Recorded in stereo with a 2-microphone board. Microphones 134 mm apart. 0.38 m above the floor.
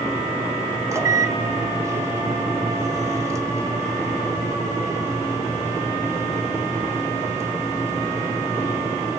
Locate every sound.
0.9 s a microwave: 20° right (ahead or behind), 1.3 m